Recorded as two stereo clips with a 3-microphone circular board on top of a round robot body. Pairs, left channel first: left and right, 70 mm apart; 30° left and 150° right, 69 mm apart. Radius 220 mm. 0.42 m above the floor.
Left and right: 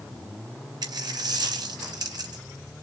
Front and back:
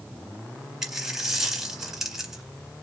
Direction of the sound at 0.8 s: 65° right.